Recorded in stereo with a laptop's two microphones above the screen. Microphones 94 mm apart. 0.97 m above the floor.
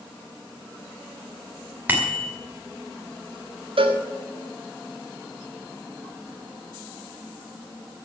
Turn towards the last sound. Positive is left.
turn(degrees=-70)  # may be behind; listen again after turning